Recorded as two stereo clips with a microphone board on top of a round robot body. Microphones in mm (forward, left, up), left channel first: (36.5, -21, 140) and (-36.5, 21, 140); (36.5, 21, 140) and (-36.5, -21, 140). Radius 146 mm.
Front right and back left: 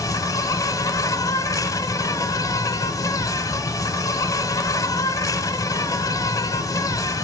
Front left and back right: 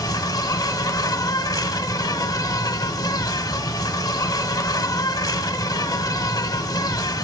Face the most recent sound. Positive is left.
turn(degrees=5)